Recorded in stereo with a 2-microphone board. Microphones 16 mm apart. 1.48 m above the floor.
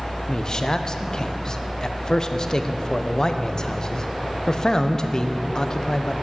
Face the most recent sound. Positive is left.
turn(degrees=35)  # may be behind; listen again after turning